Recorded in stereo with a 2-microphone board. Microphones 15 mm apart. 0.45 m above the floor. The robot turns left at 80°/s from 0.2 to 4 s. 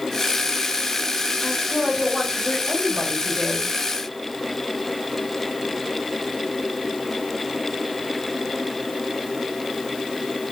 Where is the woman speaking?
15° left, 2.5 m; by 3.7 s 170° right, 2.5 m.